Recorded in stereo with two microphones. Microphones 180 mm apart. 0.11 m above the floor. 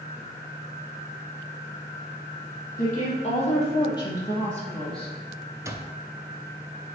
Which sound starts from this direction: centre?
An alarm clock, at 5.7 s.